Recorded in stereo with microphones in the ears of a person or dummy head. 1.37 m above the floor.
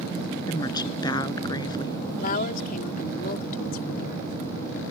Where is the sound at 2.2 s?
55° left (ahead or behind).